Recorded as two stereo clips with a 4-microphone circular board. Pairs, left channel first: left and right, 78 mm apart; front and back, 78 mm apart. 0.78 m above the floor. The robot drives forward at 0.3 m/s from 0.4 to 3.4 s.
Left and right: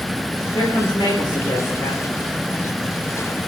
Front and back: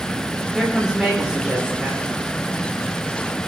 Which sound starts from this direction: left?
A woman speaking, at 0.5 s.